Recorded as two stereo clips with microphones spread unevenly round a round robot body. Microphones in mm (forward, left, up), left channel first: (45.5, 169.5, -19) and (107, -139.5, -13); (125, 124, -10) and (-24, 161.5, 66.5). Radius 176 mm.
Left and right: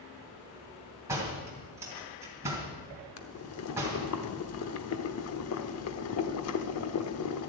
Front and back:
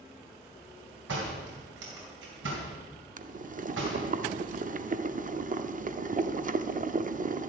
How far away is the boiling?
About 0.8 m.